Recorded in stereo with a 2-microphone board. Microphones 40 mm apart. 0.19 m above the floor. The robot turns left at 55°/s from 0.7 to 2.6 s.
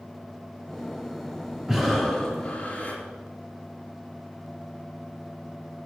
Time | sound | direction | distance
1.7 | breathing | 170° right | 3 m